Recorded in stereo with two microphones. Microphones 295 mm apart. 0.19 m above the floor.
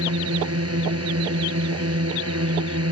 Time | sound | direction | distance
0.0 | a drone | 55° right (ahead or behind) | ?